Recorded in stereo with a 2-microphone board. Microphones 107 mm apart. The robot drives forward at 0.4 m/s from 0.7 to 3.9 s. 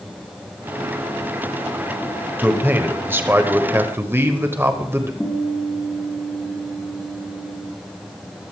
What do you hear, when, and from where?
2.4 s a man speaking: 20° right (ahead or behind), 1.6 m
5.2 s a guitar: 15° left (ahead or behind), 3.5 m